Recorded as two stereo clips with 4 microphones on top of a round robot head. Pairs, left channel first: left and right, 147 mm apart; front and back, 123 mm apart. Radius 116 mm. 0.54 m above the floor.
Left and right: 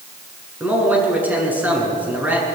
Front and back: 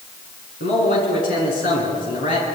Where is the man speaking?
10° right, 8 m.